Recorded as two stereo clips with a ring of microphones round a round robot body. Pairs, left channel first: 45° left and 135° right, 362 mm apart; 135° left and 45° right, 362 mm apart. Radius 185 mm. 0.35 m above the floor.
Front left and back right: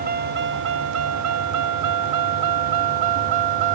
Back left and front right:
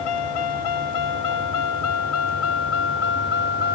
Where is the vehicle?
155° left; by 3.8 s 160° right.